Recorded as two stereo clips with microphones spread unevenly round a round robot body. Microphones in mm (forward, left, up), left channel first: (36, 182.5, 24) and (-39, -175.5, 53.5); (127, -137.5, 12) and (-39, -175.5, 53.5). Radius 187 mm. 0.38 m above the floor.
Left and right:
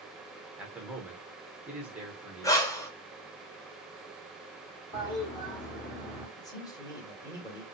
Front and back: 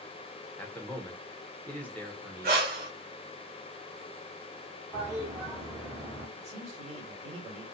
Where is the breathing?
155° left, 0.6 m.